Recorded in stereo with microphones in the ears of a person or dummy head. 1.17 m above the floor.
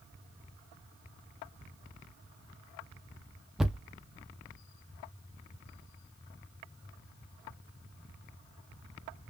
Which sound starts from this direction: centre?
A thud, at 3.6 s.